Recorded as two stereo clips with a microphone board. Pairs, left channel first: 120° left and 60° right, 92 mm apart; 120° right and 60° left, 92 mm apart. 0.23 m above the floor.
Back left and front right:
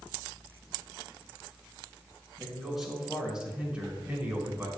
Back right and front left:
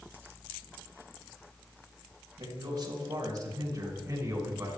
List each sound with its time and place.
2.4 s a man speaking: 30° left, 3.5 m; by 4.7 s straight ahead, 3 m